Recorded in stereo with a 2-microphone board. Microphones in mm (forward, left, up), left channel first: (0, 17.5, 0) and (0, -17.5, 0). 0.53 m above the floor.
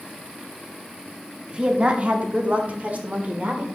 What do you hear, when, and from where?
1.5 s a woman speaking: 25° right (ahead or behind), 0.8 m; by 3.7 s 45° right (ahead or behind), 1.5 m